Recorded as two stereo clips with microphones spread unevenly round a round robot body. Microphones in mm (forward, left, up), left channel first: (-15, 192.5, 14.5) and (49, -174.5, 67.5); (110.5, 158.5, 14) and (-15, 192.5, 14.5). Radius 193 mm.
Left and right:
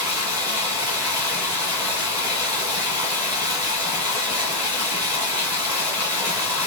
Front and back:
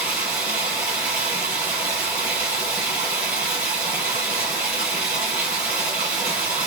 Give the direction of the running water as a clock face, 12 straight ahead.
5 o'clock.